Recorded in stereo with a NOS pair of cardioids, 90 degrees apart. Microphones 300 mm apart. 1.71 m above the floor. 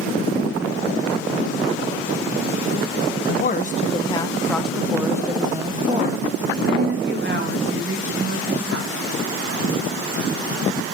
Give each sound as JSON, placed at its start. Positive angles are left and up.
{"t": 3.3, "sound": "a woman speaking", "azimuth_deg": 35, "distance_m": 1.5}